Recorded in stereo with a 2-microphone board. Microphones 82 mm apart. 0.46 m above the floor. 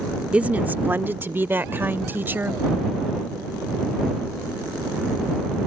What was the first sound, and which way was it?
A woman speaking, 15° right (ahead or behind).